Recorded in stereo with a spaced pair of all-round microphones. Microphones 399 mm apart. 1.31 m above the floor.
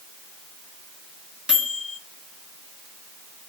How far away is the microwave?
About 0.9 m.